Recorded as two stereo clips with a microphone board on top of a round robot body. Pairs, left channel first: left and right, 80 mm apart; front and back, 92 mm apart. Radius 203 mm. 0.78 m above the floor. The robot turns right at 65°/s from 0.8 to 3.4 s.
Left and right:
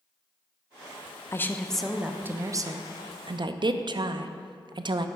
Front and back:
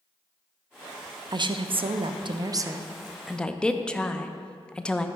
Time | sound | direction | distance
1.3 | a woman speaking | 145° left | 0.5 m